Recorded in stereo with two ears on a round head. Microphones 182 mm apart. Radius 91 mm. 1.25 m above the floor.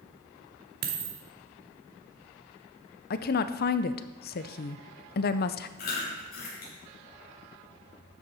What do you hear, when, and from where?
0.8 s a dropped coin: 50° right (ahead or behind), 1.3 m
3.1 s a woman speaking: 50° left (ahead or behind), 0.6 m
5.8 s chewing: 50° left (ahead or behind), 5 m